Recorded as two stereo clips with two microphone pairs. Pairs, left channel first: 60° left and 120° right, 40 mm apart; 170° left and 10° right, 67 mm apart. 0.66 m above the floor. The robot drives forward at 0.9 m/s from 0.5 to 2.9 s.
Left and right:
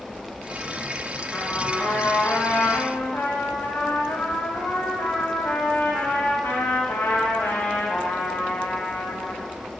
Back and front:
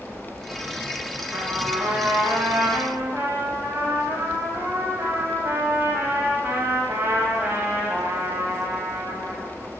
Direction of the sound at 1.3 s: 25° left.